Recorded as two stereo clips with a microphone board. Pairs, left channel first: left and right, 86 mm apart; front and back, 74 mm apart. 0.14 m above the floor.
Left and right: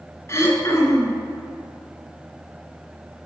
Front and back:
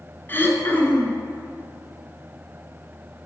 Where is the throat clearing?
50° left, 0.9 m.